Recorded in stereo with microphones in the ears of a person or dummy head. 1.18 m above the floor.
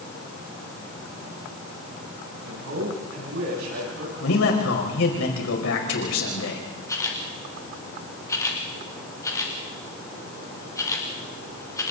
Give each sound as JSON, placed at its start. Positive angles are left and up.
{"t": 2.4, "sound": "a man speaking", "side_deg": -75, "distance_m": 7.5}
{"t": 4.2, "sound": "a man speaking", "side_deg": 80, "distance_m": 5.0}
{"t": 6.9, "sound": "a camera shutter", "side_deg": 15, "distance_m": 2.5}